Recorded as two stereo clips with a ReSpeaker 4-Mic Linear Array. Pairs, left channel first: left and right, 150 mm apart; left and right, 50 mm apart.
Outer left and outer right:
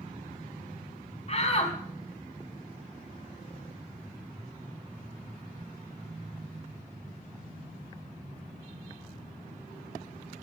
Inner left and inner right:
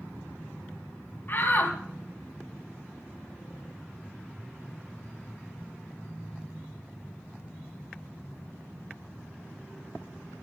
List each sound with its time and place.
1.3 s a shout: 45° left (ahead or behind), 3 m